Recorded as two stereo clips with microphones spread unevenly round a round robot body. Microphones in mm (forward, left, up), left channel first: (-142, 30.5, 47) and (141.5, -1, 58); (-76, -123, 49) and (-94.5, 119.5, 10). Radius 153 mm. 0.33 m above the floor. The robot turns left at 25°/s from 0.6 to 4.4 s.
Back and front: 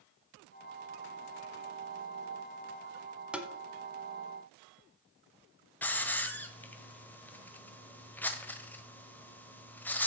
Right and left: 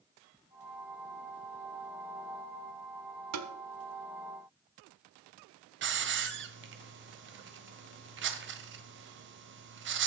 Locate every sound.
3.3 s tapping: 80° left, 1.2 m; by 3.5 s 75° left, 1.2 m
5.8 s a hiss: 90° left, 1.4 m